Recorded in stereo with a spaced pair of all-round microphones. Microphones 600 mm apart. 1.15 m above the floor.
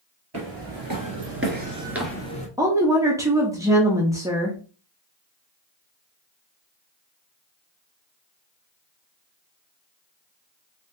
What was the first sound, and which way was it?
Footsteps, 40° right (ahead or behind).